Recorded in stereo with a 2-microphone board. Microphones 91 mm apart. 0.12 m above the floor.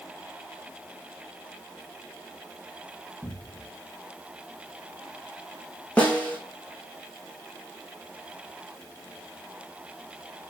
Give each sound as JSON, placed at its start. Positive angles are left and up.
{"t": 3.2, "sound": "a cupboard door", "side_deg": 35, "distance_m": 4.5}
{"t": 6.0, "sound": "a snare drum", "side_deg": 15, "distance_m": 4.0}